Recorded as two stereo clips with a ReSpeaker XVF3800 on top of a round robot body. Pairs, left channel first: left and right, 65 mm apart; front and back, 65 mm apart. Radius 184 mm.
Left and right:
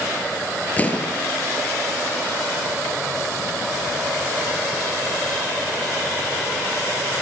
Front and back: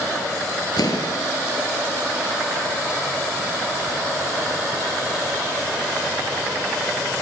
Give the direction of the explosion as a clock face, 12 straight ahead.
11 o'clock.